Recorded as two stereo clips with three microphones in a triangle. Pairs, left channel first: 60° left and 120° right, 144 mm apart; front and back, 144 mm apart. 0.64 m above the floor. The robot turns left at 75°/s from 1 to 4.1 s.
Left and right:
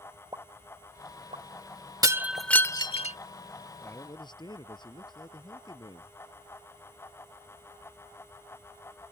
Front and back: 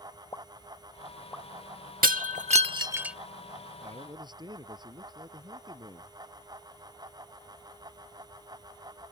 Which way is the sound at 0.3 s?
60° right.